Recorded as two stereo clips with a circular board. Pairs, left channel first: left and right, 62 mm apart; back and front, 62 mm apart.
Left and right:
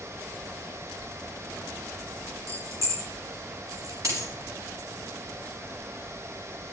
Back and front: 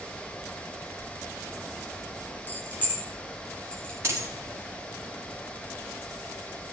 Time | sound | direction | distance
2.5 | keys jangling | 125° right | 1.9 m
4.0 | a dropped coin | 55° right | 4.5 m